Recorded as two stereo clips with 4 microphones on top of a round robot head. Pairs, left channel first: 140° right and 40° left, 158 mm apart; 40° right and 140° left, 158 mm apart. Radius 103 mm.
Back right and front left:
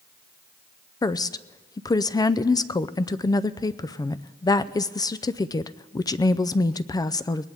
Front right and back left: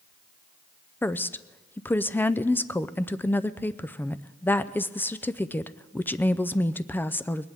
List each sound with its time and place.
1.0 s a woman speaking: 105° right, 0.5 m